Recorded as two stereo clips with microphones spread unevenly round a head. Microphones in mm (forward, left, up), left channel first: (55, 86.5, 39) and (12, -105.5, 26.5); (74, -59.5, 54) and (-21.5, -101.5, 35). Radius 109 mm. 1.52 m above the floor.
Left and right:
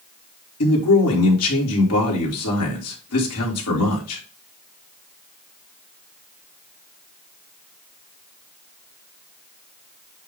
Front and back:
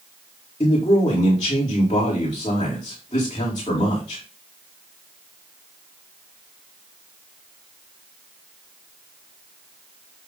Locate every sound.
0.6 s a man speaking: 90° left, 2.5 m